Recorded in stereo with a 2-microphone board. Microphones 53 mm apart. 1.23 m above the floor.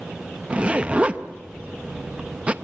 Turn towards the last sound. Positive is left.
turn(degrees=-25)  # may be behind; listen again after turning